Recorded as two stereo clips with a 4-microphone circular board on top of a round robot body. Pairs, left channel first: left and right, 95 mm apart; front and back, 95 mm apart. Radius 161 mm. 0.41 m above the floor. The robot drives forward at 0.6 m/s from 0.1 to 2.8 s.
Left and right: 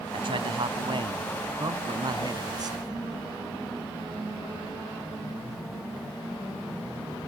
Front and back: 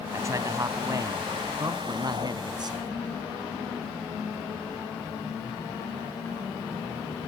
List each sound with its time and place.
0.1 s a man speaking: 120° right; by 3.0 s 135° right